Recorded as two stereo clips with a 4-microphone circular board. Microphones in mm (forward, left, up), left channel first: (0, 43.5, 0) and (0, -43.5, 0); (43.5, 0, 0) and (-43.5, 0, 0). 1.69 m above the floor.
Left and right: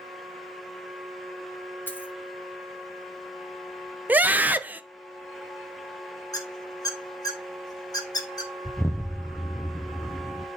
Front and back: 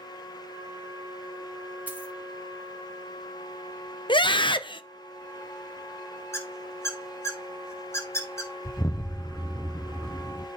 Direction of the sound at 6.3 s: 55° left.